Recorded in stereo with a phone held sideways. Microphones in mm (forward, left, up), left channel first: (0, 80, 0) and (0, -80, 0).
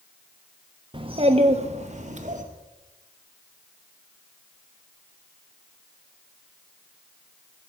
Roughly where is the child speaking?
Right.